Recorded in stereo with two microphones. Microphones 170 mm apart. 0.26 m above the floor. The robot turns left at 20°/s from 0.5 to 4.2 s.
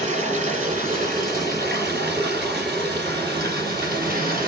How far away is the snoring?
I don't hear snoring.